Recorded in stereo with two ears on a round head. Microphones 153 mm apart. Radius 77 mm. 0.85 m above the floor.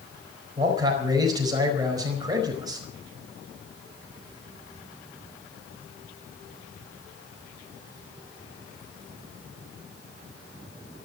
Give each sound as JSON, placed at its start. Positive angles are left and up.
{"t": 0.6, "sound": "a man speaking", "side_deg": -20, "distance_m": 4.5}